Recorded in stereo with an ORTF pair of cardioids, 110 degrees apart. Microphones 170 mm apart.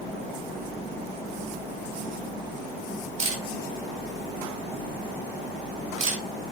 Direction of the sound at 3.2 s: 40° right.